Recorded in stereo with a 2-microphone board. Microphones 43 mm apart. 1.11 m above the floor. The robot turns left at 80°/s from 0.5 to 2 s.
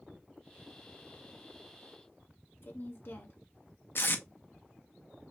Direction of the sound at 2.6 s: 55° left (ahead or behind).